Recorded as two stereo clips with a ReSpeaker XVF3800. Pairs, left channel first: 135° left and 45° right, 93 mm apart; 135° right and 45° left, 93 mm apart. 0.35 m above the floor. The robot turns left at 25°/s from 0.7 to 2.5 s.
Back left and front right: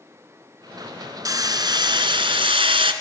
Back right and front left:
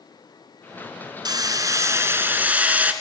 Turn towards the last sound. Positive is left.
turn(degrees=-25)